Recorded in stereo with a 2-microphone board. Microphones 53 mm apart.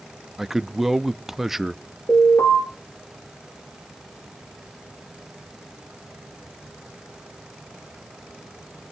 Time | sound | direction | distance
0.4 | a man speaking | 5° right (ahead or behind) | 0.6 m
2.1 | an alarm | 70° left (ahead or behind) | 9 m